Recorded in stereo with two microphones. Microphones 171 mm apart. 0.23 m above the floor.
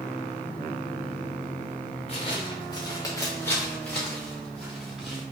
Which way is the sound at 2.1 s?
35° left (ahead or behind).